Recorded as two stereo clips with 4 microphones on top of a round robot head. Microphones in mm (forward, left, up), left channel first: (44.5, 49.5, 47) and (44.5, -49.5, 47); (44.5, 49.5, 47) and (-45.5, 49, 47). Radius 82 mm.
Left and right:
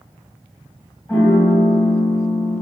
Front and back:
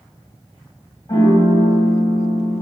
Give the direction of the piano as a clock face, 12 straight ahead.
11 o'clock.